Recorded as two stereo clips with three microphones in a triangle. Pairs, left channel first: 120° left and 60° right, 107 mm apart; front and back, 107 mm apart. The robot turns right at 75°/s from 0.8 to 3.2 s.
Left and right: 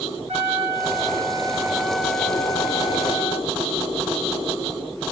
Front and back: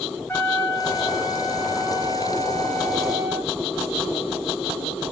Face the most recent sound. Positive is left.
turn(degrees=110)